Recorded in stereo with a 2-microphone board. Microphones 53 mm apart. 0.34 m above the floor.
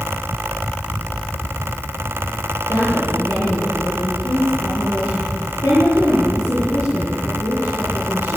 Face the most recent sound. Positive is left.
turn(degrees=70)  # may be behind; listen again after turning